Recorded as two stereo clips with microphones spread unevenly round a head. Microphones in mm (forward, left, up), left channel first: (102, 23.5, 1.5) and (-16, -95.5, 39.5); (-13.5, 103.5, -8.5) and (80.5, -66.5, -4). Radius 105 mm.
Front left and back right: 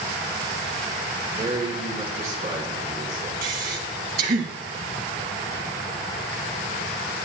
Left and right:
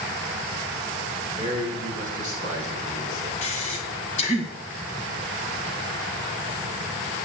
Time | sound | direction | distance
1.4 | a man speaking | 170° left | 3.5 m
3.4 | breathing | straight behind | 1.7 m